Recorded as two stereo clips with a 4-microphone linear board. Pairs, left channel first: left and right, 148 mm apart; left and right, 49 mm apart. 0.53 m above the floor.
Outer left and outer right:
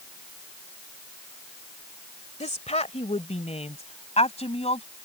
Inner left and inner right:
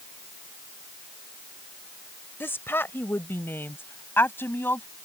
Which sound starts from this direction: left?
A woman speaking, at 2.4 s.